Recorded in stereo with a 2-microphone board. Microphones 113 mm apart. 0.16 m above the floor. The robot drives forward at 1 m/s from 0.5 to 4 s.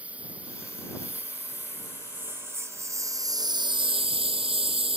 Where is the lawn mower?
10° right (ahead or behind); by 5.0 s 55° right (ahead or behind).